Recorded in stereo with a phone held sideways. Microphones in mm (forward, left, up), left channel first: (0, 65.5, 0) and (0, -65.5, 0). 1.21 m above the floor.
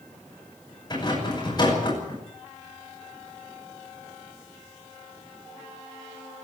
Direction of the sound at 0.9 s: 30° left (ahead or behind).